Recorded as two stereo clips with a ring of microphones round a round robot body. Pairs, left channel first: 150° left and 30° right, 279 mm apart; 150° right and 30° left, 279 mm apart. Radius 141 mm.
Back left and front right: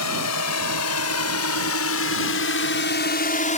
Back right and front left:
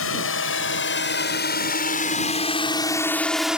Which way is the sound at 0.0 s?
170° left.